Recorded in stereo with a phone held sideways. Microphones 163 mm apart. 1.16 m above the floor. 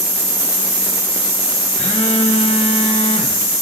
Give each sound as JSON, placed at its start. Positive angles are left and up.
{"t": 1.8, "sound": "a phone buzzing", "side_deg": 40, "distance_m": 4.5}